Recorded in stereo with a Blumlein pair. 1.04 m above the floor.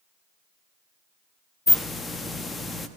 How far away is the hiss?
About 1.1 m.